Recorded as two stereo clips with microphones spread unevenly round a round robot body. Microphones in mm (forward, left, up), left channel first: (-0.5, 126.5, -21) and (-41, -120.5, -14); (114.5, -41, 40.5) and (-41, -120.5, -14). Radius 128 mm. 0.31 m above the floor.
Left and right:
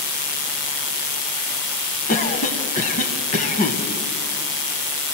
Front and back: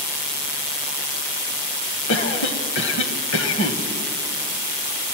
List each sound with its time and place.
2.1 s a cough: 25° left, 1.8 m